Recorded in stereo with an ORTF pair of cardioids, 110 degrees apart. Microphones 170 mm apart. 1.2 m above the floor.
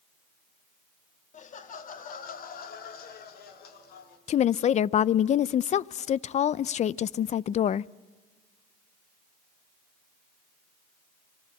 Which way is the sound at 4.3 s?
45° left.